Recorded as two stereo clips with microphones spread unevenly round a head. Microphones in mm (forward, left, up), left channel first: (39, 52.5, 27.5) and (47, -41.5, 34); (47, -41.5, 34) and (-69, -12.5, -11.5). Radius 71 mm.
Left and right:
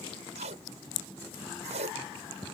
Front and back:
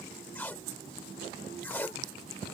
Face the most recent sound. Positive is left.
turn(degrees=-85)